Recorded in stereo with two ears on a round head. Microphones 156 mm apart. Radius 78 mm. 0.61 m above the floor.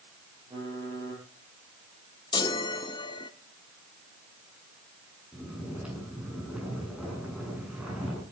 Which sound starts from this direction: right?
Typing on a keyboard, at 0.5 s.